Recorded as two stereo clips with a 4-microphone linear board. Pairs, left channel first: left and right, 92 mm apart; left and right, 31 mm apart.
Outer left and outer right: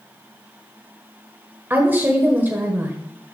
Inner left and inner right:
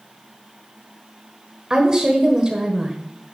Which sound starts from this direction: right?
A woman speaking, at 1.7 s.